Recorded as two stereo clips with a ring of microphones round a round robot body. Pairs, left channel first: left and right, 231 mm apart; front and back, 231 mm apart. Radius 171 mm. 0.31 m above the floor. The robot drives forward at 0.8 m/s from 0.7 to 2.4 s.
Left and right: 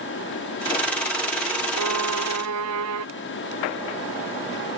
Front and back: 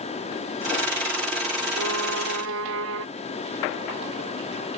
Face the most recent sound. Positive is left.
turn(degrees=-130)